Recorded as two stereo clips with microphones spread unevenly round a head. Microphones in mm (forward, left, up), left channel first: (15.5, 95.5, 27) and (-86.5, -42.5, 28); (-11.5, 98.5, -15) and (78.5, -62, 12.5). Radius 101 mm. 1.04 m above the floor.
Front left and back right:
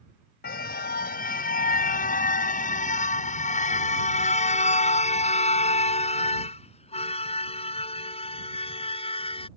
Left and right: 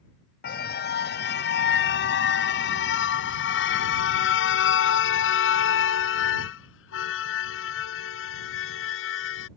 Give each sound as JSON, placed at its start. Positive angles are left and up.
{"t": 0.4, "sound": "a car horn", "azimuth_deg": 85}